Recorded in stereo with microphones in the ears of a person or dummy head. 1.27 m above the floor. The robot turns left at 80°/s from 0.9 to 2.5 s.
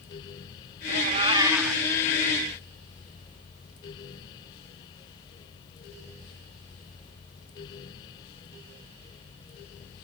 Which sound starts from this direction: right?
A cat meowing, at 0.9 s.